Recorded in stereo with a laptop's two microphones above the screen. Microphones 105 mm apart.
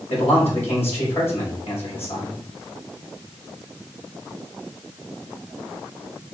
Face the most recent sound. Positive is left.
turn(degrees=80)